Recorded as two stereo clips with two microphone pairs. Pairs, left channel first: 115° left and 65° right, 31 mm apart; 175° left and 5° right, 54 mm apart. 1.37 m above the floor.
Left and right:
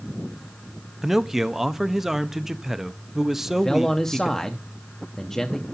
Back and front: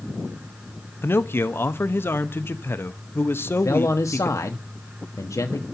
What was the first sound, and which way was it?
A man speaking, 145° right.